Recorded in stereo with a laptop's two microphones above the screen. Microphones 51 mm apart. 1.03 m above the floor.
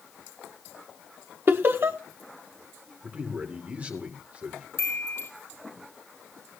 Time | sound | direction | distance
1.5 | laughter | 50° right (ahead or behind) | 0.9 m
3.0 | a man speaking | 30° right (ahead or behind) | 2.5 m
4.8 | a chime | 65° left (ahead or behind) | 6.5 m